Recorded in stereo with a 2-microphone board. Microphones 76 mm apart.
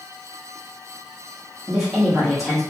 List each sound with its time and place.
1.7 s a woman speaking: 5° right (ahead or behind), 0.9 m